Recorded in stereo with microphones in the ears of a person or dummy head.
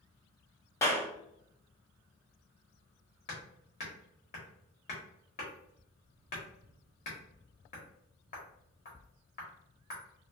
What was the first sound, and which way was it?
A clap, 15° left (ahead or behind).